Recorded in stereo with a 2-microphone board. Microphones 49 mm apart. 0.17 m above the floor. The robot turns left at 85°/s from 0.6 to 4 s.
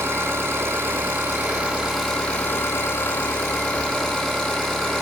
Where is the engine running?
60° right, 5.5 m; by 5.0 s 10° left, 5.5 m.